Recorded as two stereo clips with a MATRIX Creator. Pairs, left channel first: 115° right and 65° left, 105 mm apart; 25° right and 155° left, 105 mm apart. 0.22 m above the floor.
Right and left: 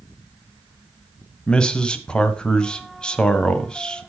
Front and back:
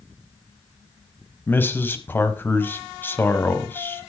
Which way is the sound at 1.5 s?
50° right.